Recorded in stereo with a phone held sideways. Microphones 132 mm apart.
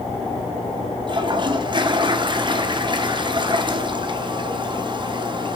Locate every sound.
1.1 s a toilet flushing: 35° right (ahead or behind), 1.0 m